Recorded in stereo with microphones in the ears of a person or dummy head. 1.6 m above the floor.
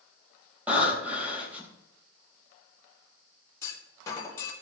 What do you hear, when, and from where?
0.7 s breathing: 10° right (ahead or behind), 4 m
3.6 s a clunk: 15° left (ahead or behind), 4 m